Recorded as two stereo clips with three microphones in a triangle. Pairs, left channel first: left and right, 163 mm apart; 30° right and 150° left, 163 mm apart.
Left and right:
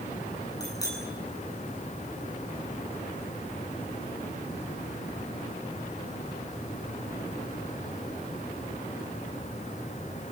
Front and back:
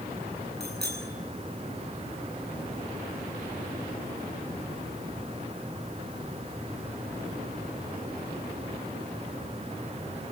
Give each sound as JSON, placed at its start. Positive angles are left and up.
{"t": 0.6, "sound": "a bicycle bell", "azimuth_deg": 160, "distance_m": 8.5}